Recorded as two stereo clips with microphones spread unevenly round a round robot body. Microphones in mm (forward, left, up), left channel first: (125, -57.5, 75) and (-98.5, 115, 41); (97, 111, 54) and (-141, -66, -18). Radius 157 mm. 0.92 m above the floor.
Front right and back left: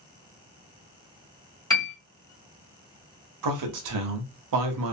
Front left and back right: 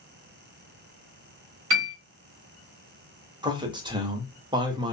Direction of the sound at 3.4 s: 145° left.